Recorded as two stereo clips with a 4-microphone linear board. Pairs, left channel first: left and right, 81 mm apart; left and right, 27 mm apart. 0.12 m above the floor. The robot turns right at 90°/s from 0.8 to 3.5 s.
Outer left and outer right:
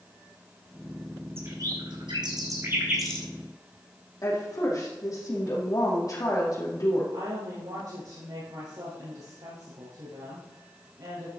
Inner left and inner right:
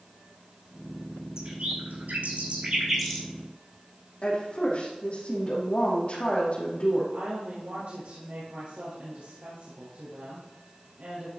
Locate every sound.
1.4 s a bird: 30° right (ahead or behind), 2 m; by 3.3 s 20° left (ahead or behind), 2 m
4.2 s a woman speaking: 50° left (ahead or behind), 4.5 m
7.1 s a woman speaking: 65° right (ahead or behind), 3.5 m